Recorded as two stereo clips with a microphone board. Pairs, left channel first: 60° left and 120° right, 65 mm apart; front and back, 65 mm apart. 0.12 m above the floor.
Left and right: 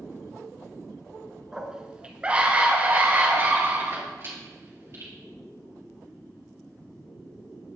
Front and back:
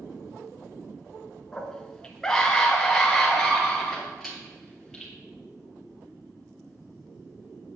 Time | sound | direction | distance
1.5 | a scream | 50° right | 1.2 m